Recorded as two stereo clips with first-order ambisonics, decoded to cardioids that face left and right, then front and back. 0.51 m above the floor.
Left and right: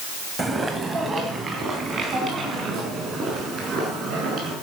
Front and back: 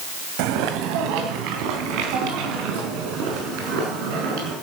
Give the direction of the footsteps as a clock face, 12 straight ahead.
6 o'clock.